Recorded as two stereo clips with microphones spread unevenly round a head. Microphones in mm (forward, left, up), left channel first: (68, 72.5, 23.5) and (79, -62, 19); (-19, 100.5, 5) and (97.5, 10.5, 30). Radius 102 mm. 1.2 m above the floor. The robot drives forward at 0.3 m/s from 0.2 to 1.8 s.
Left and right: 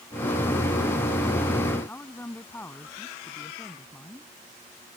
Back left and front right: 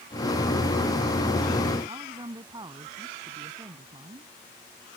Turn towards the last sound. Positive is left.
turn(degrees=20)